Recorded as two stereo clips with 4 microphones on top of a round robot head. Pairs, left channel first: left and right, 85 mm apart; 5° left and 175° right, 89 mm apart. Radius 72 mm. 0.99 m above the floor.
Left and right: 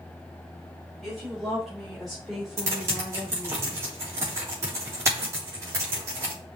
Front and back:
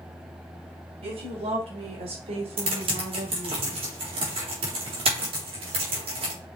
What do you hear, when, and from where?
1.0 s a woman speaking: straight behind, 4 m; by 3.6 s 175° right, 1.8 m
2.6 s typing on a keyboard: 155° right, 3.5 m